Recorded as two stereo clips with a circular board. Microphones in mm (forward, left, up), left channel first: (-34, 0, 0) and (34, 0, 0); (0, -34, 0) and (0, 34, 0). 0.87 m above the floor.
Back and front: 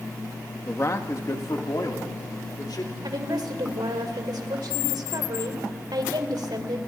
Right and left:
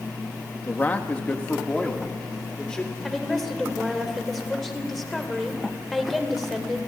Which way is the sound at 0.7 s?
140° right.